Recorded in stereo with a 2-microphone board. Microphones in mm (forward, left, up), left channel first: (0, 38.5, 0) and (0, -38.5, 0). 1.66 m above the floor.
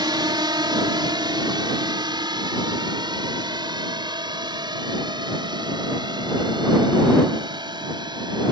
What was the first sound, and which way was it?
A drone, 80° right.